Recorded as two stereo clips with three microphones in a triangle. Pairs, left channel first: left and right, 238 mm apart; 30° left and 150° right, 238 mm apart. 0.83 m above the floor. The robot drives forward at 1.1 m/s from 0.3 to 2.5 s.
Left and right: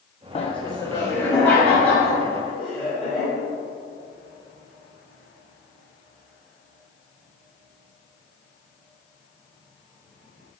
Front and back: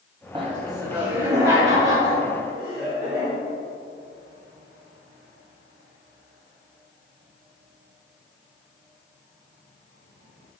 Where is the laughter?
145° left, 0.5 m; by 3.3 s 175° left, 2.5 m.